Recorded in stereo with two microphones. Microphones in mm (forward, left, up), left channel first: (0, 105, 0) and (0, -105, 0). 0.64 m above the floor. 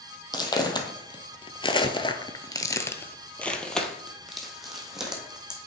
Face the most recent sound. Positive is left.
turn(degrees=-5)  # may be behind; listen again after turning